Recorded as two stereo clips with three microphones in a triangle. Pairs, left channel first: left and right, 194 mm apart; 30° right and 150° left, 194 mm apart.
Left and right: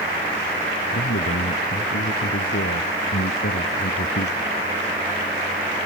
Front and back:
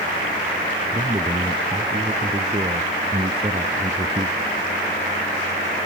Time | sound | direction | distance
0.9 | a man speaking | 85° left | ?